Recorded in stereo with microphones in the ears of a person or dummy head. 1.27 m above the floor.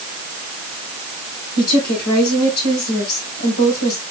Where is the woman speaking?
85° left, 4.5 m.